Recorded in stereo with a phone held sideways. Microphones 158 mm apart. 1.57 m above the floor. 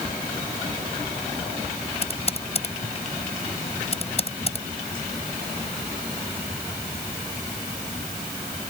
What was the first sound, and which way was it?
Typing on a keyboard, 40° left (ahead or behind).